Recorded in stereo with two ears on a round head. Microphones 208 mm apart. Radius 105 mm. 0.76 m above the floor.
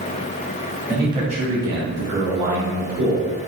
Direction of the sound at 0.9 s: 10° right (ahead or behind).